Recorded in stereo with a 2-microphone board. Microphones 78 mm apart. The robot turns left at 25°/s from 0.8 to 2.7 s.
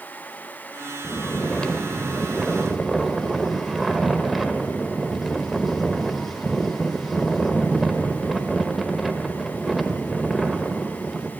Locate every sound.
1.0 s snoring: 15° left (ahead or behind), 0.7 m; by 11.3 s centre (ahead or behind), 0.7 m